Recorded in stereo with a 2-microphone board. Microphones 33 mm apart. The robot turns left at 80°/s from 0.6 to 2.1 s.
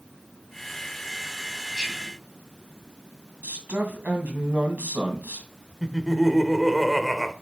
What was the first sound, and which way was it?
Whispering, 35° right (ahead or behind).